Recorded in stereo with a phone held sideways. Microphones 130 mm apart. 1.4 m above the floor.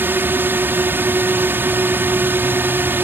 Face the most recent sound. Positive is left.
turn(degrees=-15)  # may be behind; listen again after turning